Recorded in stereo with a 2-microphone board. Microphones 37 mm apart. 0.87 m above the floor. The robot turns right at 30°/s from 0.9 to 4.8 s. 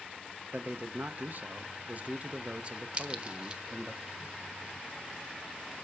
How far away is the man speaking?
About 0.7 m.